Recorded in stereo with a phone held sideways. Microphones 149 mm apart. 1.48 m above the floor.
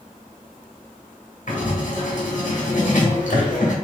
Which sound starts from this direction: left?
Writing, at 1.5 s.